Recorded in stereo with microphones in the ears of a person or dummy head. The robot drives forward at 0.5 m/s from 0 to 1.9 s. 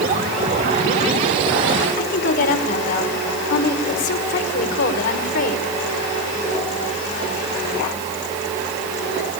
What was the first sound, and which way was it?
A woman speaking, 60° left (ahead or behind).